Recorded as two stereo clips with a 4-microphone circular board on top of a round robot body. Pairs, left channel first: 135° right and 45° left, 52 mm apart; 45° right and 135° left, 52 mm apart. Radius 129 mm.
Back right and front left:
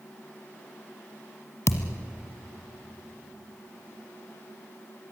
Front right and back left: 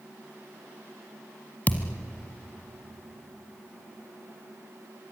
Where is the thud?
100° right, 1.1 m.